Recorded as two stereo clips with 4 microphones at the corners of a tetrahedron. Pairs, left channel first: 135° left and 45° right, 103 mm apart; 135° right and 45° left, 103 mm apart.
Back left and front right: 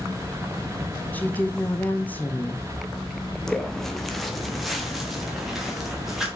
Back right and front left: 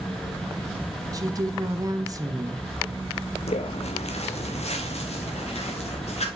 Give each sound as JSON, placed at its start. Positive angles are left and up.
{"t": 1.1, "sound": "a woman speaking", "azimuth_deg": 75, "distance_m": 1.3}
{"t": 3.5, "sound": "footsteps", "azimuth_deg": -140, "distance_m": 1.0}